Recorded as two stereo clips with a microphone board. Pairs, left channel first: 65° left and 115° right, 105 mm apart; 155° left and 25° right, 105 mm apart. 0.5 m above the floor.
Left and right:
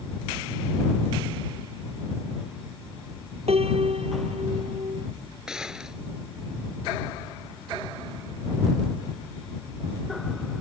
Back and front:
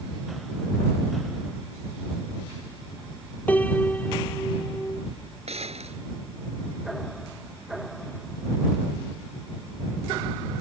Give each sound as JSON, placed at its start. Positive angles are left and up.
{"t": 3.5, "sound": "a piano", "azimuth_deg": -130}
{"t": 5.5, "sound": "a gunshot", "azimuth_deg": -30}